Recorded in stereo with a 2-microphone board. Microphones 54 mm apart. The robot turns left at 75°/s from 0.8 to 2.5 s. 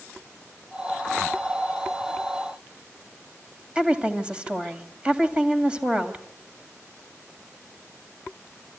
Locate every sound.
3.8 s a woman speaking: 20° right (ahead or behind), 2.5 m